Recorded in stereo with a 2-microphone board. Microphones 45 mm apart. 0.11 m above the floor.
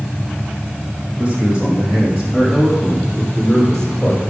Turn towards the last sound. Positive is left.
turn(degrees=20)  # may be behind; listen again after turning